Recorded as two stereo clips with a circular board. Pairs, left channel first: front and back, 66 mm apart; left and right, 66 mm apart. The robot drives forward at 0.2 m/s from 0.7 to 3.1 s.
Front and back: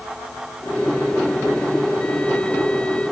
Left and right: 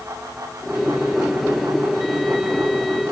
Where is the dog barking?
I don't hear a dog barking.